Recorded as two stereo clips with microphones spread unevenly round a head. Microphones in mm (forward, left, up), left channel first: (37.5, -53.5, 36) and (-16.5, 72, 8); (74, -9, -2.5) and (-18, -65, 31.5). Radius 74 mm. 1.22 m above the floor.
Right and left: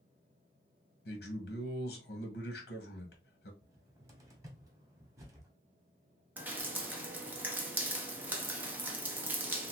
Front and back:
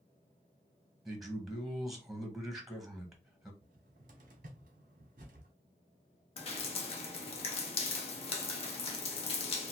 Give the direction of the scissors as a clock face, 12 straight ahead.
I don't hear scissors.